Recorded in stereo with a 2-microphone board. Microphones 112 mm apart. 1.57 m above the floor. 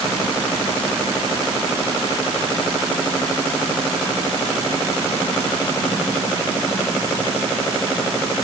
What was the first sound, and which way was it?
Only background noise.